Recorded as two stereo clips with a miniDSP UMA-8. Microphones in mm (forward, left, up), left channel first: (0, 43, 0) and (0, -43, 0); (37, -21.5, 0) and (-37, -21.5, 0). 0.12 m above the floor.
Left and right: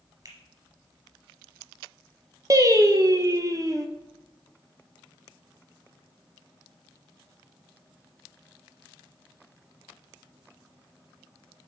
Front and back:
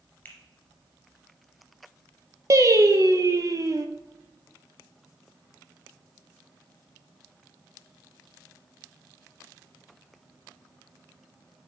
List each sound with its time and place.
0.2 s a finger snap: 60° right, 2 m
2.5 s singing: 140° right, 0.8 m